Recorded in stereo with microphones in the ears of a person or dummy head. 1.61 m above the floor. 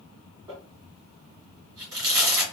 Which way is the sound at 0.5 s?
30° right (ahead or behind).